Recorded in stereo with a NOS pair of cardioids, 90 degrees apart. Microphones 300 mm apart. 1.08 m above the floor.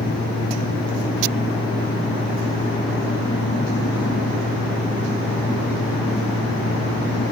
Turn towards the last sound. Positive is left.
turn(degrees=15)